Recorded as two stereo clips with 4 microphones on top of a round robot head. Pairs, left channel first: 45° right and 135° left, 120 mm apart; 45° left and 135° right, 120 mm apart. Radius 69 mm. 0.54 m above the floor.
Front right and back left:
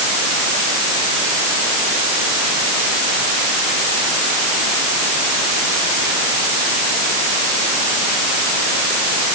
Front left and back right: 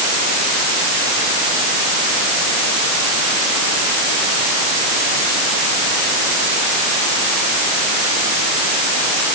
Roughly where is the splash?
No splash in this recording.